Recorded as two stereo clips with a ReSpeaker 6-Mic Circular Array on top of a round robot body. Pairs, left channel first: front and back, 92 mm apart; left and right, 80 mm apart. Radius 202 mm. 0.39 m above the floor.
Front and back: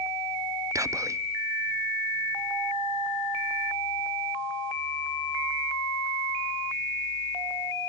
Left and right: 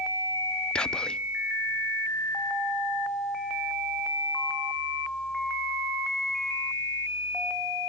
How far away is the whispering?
About 0.9 m.